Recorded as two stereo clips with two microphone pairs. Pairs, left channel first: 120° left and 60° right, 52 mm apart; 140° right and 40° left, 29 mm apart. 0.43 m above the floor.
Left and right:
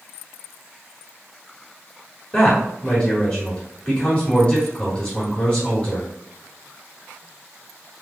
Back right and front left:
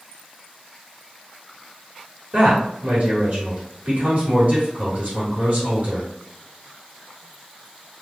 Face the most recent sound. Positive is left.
turn(degrees=70)